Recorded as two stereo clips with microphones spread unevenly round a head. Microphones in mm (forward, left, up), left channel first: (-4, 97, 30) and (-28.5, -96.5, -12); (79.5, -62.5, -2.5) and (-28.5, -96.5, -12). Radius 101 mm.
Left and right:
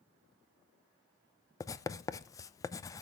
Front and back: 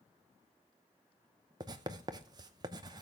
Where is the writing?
165° left, 0.6 m.